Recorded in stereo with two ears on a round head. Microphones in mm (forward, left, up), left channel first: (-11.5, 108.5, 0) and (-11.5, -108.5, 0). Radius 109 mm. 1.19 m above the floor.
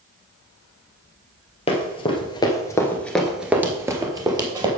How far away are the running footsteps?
About 1.7 m.